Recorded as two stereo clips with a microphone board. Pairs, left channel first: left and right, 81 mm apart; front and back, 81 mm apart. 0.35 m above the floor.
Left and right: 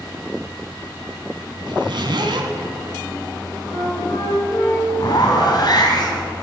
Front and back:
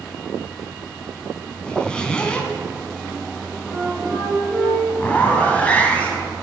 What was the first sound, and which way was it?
A zipper, 80° right.